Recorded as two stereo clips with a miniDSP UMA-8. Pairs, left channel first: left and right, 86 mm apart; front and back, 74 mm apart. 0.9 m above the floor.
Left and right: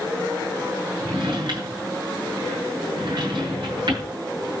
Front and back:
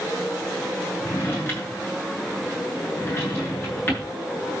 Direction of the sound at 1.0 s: 60° right.